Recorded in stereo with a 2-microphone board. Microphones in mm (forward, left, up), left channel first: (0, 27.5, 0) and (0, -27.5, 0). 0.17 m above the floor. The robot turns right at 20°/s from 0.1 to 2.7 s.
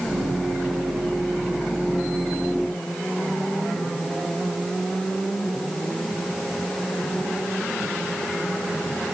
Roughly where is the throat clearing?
No throat clearing in this recording.